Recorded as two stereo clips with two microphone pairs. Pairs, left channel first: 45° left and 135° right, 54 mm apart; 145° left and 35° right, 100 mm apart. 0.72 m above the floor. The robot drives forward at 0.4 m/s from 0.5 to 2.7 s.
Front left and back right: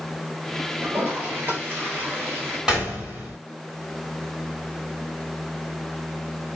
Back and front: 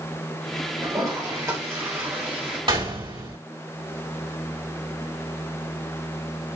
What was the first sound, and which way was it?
A toilet flushing, 80° right.